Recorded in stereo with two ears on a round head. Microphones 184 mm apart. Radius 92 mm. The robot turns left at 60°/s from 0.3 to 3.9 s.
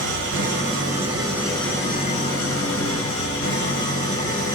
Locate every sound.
0.0 s an engine running: 105° right, 5 m; by 4.5 s 35° left, 5 m